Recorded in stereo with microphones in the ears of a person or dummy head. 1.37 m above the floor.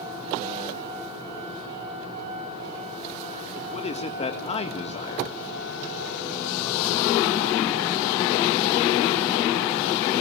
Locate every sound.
3.6 s a man speaking: 35° left (ahead or behind), 1.6 m